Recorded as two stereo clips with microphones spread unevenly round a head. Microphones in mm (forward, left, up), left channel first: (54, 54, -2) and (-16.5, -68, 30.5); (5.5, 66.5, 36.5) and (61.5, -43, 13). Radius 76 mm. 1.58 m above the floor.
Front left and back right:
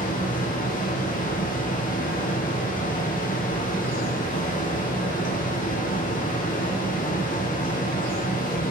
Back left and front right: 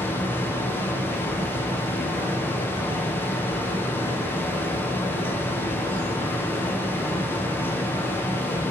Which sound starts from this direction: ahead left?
A fan, at 0.0 s.